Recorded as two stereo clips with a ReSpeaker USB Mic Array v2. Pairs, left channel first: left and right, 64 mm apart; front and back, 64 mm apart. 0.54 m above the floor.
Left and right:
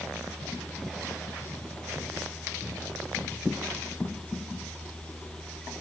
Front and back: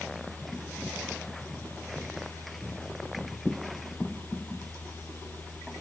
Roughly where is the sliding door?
No sliding door in this recording.